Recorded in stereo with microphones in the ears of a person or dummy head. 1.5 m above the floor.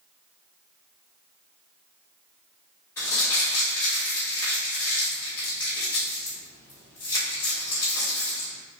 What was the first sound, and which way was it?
Crumpling, 15° left (ahead or behind).